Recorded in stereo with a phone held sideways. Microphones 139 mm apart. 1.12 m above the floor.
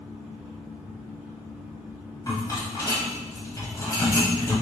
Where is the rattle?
25° left (ahead or behind), 1.6 m.